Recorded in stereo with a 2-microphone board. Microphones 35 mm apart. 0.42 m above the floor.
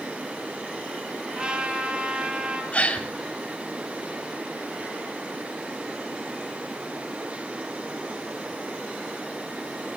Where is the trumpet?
30° right (ahead or behind), 2.5 m.